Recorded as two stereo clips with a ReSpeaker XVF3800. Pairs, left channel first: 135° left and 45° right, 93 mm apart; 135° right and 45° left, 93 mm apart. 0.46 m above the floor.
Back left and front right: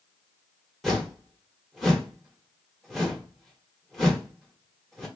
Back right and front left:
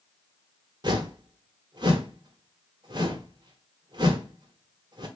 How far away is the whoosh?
About 1.3 m.